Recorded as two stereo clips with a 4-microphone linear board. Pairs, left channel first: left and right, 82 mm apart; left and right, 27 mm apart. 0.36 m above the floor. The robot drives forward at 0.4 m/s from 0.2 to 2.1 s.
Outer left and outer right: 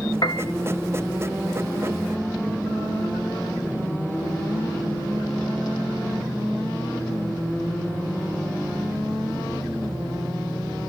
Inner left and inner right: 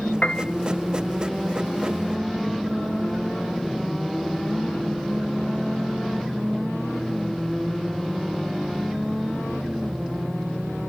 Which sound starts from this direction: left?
A piano, at 0.2 s.